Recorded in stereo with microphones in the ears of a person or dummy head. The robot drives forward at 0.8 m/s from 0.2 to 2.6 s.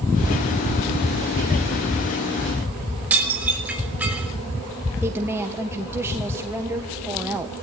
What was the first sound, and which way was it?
Dishes clattering, 10° right (ahead or behind).